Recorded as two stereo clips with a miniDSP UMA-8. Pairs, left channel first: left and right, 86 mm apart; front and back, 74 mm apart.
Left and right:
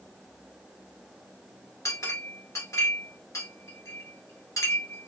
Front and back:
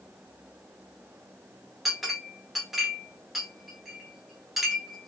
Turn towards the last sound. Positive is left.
turn(degrees=95)